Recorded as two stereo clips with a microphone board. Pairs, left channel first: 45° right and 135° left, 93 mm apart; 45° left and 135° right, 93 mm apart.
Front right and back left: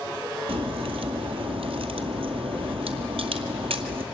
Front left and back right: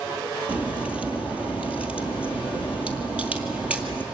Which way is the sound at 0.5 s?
145° left.